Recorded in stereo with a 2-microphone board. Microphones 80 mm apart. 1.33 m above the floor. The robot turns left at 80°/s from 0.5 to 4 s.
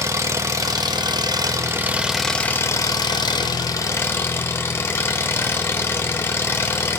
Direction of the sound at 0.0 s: 45° right.